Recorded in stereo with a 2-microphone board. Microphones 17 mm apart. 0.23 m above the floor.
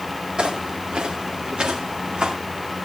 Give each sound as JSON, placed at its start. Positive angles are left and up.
{"t": 0.4, "sound": "footsteps", "side_deg": -80, "distance_m": 4.5}